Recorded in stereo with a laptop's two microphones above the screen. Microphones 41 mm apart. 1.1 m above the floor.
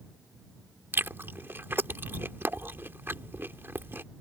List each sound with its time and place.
0.9 s chewing: 65° right (ahead or behind)